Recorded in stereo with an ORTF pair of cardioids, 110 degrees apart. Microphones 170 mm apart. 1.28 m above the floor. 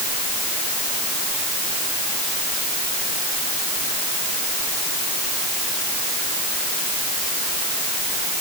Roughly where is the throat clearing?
No throat clearing in this recording.